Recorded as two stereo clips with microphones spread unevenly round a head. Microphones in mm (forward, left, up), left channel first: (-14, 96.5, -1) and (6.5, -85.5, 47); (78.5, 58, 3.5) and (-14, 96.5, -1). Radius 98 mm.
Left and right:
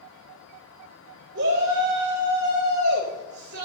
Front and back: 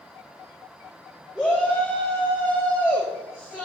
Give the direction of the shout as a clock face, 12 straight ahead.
4 o'clock.